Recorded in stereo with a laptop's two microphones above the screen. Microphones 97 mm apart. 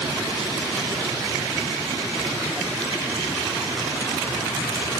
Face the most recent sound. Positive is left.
No sound to turn to.